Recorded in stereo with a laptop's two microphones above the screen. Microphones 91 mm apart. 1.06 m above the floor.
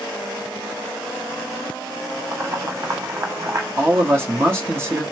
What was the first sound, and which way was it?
Boiling, 30° right (ahead or behind).